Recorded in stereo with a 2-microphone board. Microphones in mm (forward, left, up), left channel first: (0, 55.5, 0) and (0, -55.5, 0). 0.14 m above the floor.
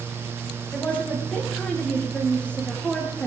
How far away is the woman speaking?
About 7 m.